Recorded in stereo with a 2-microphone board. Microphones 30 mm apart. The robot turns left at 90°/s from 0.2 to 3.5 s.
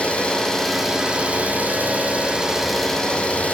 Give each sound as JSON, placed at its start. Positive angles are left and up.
{"t": 0.0, "sound": "an engine running", "azimuth_deg": 50, "distance_m": 4.0}